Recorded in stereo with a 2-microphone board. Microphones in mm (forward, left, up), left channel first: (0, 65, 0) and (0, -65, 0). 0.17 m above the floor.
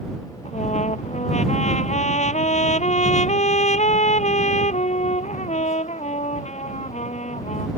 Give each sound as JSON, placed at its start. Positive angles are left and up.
{"t": 0.5, "sound": "a trumpet", "side_deg": 65}